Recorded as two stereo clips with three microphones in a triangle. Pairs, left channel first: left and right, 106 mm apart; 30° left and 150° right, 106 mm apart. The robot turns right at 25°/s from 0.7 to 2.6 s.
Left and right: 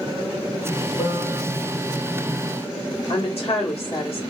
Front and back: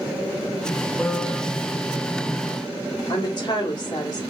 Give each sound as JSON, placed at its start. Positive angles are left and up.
{"t": 1.0, "sound": "a piano", "azimuth_deg": 120, "distance_m": 1.6}
{"t": 3.1, "sound": "a woman speaking", "azimuth_deg": 75, "distance_m": 1.2}